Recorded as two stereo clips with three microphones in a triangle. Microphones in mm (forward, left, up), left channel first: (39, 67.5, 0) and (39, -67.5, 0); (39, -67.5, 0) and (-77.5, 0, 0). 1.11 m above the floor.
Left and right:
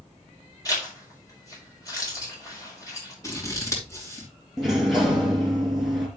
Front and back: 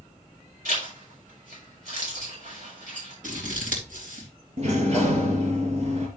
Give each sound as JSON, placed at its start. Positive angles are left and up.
{"t": 0.7, "sound": "a zipper", "azimuth_deg": 155, "distance_m": 5.0}
{"t": 3.2, "sound": "scissors", "azimuth_deg": 155, "distance_m": 2.5}
{"t": 4.6, "sound": "a sliding door", "azimuth_deg": 180, "distance_m": 3.5}